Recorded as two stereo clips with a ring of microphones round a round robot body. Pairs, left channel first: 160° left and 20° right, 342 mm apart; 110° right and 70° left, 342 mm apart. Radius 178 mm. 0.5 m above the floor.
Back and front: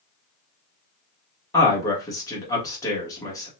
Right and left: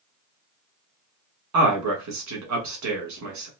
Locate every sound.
1.5 s a man speaking: 80° left, 1.5 m